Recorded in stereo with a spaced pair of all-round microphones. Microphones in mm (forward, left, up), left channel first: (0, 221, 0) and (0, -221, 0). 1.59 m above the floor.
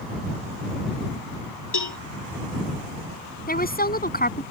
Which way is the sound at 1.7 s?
60° left (ahead or behind).